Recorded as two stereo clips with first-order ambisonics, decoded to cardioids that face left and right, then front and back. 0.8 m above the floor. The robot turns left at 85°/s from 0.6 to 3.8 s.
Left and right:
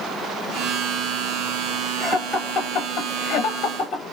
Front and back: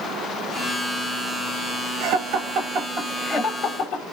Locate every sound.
2.0 s laughter: 160° right, 1.3 m; by 4.0 s 45° left, 1.3 m